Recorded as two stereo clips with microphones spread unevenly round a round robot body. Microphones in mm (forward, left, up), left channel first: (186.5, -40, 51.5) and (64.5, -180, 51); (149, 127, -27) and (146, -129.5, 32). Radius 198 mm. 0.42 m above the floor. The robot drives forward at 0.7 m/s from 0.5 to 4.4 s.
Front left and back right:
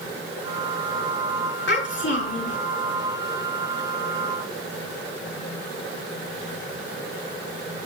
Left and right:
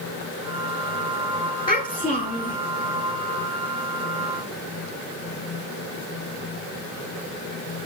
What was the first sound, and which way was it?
A child speaking, 20° left.